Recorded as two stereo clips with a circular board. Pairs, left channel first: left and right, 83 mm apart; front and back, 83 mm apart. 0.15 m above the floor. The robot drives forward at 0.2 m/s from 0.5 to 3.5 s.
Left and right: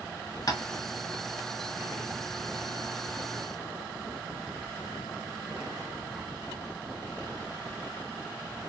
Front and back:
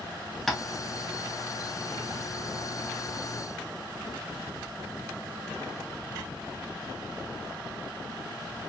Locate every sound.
0.5 s tapping: 90° left, 0.6 m